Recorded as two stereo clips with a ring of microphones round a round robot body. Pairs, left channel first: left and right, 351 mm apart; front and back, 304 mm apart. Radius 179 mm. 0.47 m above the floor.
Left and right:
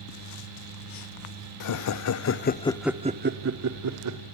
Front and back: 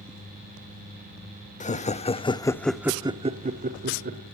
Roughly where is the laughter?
Ahead left.